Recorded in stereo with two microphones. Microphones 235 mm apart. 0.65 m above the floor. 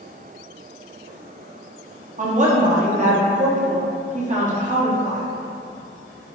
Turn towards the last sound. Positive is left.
turn(degrees=-35)  # may be behind; listen again after turning